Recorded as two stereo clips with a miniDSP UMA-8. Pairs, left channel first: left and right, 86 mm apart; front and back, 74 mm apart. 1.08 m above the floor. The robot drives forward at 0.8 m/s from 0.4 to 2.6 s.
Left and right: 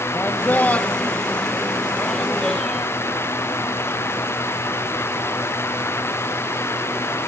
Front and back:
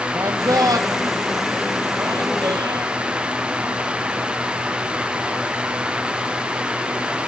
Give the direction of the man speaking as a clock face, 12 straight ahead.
7 o'clock.